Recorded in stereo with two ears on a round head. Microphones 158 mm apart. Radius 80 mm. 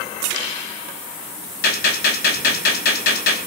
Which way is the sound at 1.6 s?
55° left (ahead or behind).